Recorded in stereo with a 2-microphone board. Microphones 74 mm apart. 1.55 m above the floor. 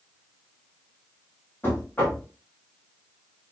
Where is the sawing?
I don't hear sawing.